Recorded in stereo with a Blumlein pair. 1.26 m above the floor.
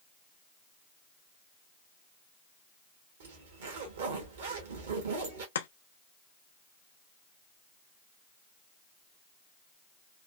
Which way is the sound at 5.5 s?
65° left.